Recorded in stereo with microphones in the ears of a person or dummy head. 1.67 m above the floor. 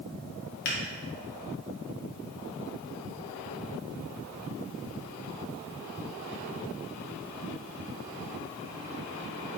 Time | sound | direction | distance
0.7 | a finger snap | 50° left (ahead or behind) | 0.9 m